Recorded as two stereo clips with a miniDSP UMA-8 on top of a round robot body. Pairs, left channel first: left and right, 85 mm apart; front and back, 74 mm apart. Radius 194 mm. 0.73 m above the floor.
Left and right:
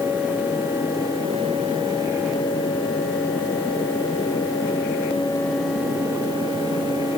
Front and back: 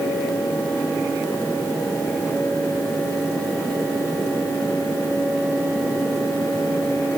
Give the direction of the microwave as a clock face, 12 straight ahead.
I don't hear a microwave.